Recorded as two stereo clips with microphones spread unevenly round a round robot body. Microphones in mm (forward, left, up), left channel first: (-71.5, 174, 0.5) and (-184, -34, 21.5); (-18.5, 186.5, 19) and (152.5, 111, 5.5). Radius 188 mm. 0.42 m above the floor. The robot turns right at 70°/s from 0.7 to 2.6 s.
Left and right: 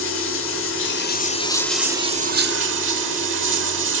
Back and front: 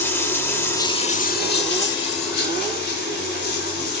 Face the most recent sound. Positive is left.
turn(degrees=-150)